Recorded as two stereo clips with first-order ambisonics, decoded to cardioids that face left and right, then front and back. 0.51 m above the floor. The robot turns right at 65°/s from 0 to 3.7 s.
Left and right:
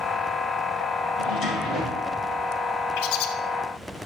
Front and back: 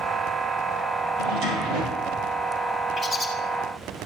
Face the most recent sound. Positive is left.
turn(degrees=125)